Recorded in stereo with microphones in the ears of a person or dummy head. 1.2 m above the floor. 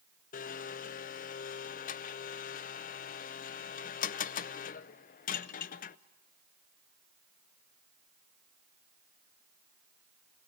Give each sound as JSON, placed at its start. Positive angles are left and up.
{"t": 0.3, "sound": "a blender", "side_deg": 45, "distance_m": 0.5}